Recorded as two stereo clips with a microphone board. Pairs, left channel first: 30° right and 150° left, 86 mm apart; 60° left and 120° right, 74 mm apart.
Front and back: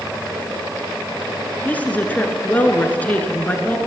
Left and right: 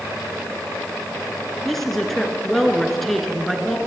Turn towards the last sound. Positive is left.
turn(degrees=-20)